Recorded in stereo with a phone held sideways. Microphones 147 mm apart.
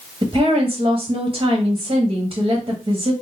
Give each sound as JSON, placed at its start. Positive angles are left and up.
{"t": 0.2, "sound": "a woman speaking", "side_deg": -35, "distance_m": 1.0}